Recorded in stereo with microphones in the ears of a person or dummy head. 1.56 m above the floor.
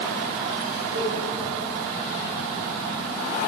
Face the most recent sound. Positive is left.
turn(degrees=-60)  # may be behind; listen again after turning